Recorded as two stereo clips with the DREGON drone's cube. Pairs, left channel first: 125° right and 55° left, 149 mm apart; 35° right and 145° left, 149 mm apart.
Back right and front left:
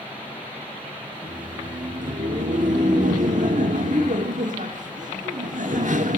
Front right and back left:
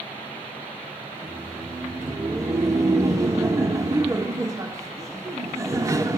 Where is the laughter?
80° left, 1.8 m.